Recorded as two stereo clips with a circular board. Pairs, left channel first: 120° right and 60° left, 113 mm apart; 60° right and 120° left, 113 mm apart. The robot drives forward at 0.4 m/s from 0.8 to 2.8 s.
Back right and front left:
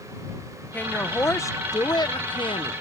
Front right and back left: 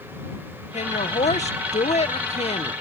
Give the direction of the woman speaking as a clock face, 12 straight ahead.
2 o'clock.